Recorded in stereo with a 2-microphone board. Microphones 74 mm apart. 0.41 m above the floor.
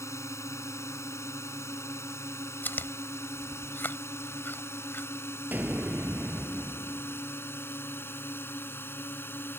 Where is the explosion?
25° right (ahead or behind).